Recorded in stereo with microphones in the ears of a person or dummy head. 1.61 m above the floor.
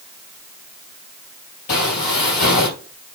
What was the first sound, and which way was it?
Footsteps, 40° left (ahead or behind).